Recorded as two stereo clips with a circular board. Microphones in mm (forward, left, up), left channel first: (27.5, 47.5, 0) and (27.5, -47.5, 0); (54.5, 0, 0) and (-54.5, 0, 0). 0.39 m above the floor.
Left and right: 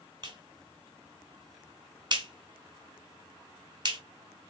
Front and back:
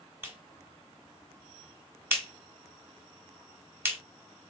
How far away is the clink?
I don't hear a clink.